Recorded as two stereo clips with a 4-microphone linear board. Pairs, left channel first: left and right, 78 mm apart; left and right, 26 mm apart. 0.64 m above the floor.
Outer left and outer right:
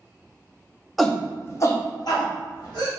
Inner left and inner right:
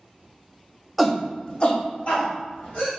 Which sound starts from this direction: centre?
A shout, at 1.0 s.